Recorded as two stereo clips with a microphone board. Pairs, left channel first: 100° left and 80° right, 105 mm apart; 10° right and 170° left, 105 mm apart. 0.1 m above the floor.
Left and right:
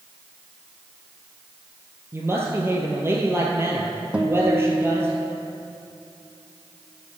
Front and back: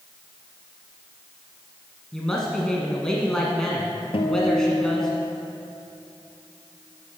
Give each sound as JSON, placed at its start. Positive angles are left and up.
{"t": 2.1, "sound": "a woman speaking", "azimuth_deg": -85, "distance_m": 1.2}
{"t": 4.1, "sound": "a guitar", "azimuth_deg": 0, "distance_m": 1.2}